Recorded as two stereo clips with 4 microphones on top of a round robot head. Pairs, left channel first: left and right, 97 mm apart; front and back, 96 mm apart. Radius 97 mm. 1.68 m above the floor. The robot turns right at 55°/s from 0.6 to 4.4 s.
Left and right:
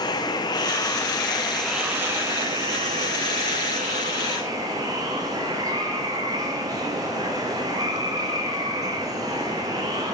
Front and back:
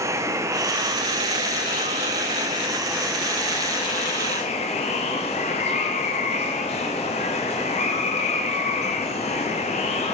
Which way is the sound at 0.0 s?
125° left.